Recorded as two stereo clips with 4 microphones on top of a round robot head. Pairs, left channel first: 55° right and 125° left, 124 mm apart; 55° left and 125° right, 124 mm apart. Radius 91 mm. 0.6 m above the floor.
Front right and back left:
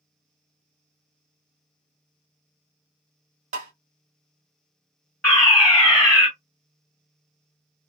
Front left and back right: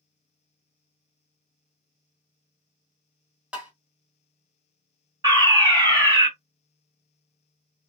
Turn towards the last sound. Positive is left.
turn(degrees=-135)